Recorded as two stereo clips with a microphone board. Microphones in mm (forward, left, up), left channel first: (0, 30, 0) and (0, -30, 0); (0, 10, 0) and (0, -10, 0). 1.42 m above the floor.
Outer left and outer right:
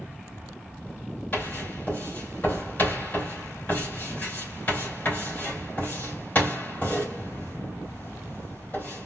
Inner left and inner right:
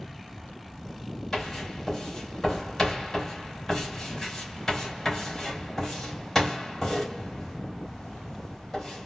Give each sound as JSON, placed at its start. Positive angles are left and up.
{"t": 1.3, "sound": "writing", "side_deg": 30, "distance_m": 2.5}